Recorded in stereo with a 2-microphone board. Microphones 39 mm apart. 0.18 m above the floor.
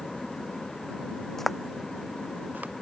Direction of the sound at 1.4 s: 5° left (ahead or behind).